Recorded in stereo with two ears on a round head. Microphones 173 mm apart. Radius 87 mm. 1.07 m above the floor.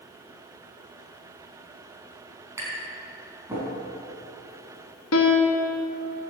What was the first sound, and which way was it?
Tapping, 15° right (ahead or behind).